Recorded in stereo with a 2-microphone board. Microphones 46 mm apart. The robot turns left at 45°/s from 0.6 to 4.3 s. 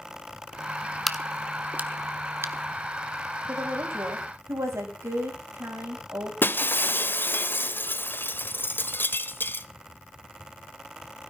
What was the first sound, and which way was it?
A crack, centre (ahead or behind).